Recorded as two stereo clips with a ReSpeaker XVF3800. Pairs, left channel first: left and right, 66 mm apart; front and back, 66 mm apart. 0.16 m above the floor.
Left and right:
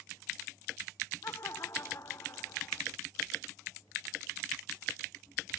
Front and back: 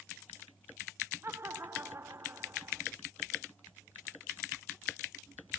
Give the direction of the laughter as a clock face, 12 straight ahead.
8 o'clock.